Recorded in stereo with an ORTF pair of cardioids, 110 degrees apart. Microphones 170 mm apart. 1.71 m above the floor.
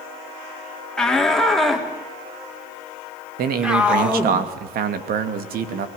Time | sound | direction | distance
1.0 | a shout | 5° left | 4 m
3.4 | a man speaking | 70° right | 2.5 m